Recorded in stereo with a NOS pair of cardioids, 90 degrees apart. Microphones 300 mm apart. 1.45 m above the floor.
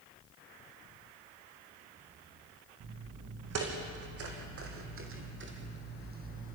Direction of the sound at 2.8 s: 65° right.